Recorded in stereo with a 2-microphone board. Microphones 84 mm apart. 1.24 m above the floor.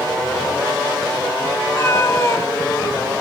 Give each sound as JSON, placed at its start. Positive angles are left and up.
{"t": 1.6, "sound": "a cat meowing", "side_deg": 30, "distance_m": 4.0}